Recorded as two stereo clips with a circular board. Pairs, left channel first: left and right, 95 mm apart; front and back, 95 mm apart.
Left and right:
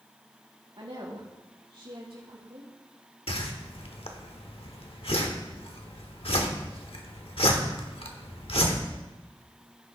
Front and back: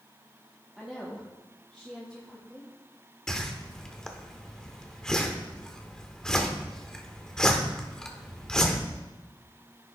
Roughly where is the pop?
No pop in this recording.